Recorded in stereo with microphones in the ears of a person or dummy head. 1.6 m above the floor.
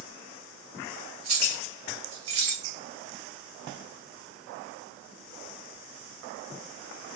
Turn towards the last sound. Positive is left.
turn(degrees=-60)  # may be behind; listen again after turning